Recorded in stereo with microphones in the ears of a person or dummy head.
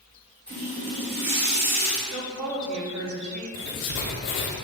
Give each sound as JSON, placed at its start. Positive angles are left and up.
{"t": 0.5, "sound": "a running tap", "side_deg": -40, "distance_m": 1.3}
{"t": 2.1, "sound": "a woman speaking", "side_deg": -70, "distance_m": 1.1}
{"t": 3.5, "sound": "writing", "side_deg": 50, "distance_m": 0.6}